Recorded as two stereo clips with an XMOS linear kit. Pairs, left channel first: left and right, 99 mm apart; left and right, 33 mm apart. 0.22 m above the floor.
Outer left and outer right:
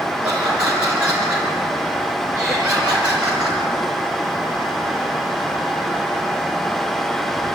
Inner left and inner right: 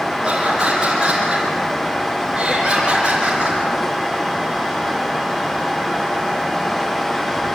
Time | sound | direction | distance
0.2 | laughter | 15° right (ahead or behind) | 4 m